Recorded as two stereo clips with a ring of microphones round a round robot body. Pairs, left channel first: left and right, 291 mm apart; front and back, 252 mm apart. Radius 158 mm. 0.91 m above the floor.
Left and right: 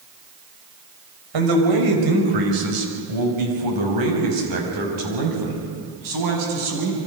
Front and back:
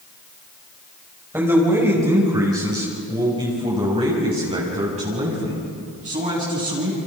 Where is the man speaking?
95° right, 5.5 m; by 7.0 s 115° right, 8 m.